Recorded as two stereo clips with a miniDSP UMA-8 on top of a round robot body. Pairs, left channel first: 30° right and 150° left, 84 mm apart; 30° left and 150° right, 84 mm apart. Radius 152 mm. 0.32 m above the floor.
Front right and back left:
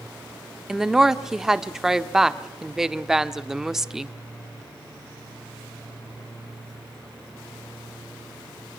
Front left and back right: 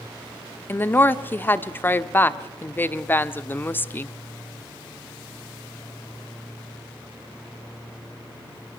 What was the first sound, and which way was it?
A woman speaking, 70° left.